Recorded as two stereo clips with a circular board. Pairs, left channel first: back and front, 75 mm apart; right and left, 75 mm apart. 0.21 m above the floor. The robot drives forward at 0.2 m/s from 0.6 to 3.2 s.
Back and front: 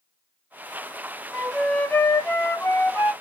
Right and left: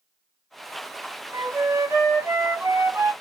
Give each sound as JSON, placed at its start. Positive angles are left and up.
{"t": 1.3, "sound": "a flute", "azimuth_deg": 105, "distance_m": 0.7}